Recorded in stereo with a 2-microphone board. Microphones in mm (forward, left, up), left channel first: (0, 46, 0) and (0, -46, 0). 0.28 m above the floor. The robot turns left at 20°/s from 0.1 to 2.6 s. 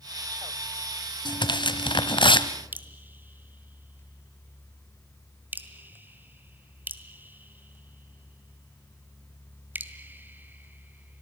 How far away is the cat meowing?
I don't hear a cat meowing.